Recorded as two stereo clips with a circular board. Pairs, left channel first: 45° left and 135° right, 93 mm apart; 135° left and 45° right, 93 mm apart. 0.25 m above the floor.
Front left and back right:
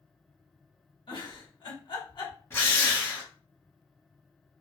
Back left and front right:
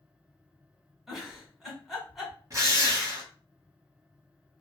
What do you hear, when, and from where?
1.1 s a giggle: 45° left, 1.3 m
2.5 s a drill: 10° right, 1.1 m